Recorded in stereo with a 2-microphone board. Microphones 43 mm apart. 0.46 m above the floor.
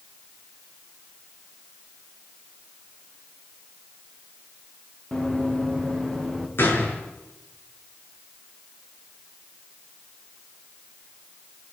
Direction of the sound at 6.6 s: 60° left (ahead or behind).